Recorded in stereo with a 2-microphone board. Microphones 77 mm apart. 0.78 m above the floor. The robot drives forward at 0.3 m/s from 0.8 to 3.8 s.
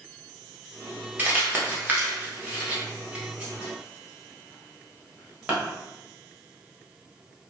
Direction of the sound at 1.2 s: 20° right (ahead or behind).